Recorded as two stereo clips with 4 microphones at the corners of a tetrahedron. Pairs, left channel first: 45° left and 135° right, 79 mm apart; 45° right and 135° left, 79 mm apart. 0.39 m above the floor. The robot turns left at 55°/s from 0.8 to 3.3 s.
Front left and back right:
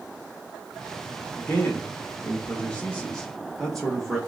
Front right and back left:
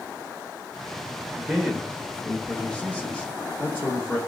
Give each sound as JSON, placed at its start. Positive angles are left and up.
{"t": 1.4, "sound": "a man speaking", "azimuth_deg": 75, "distance_m": 0.8}